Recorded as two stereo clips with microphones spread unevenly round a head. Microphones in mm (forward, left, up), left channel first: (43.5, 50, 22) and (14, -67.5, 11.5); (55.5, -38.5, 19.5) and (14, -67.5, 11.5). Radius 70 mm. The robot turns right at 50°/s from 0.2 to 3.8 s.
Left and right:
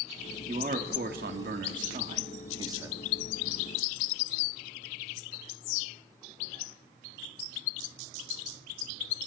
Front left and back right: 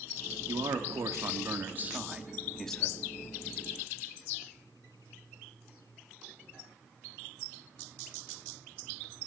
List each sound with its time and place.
0.5 s a man speaking: 155° right, 2.5 m; by 3.0 s 30° right, 2.5 m